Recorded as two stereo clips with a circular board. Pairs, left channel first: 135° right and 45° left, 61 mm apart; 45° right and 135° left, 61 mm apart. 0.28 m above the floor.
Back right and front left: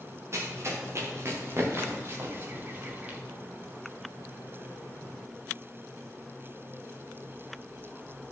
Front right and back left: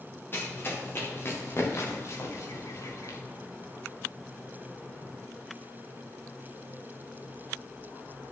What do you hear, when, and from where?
0.3 s running footsteps: 5° left, 4 m; by 3.2 s 20° right, 2.5 m